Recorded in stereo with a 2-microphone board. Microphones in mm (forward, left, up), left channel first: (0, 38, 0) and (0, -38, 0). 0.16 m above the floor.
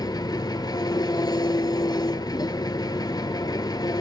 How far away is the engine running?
About 0.8 m.